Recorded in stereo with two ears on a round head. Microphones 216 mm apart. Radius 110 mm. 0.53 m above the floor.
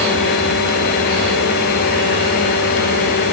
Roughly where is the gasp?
I don't hear a gasp.